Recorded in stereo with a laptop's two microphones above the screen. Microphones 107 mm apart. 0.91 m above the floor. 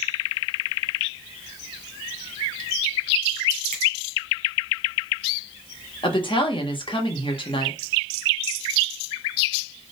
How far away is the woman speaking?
About 1.2 m.